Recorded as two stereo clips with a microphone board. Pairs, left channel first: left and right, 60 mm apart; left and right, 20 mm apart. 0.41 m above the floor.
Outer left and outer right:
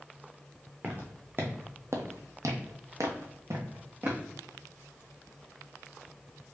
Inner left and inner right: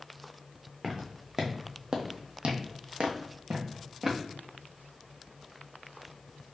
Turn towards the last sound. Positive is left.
turn(degrees=-40)  # may be behind; listen again after turning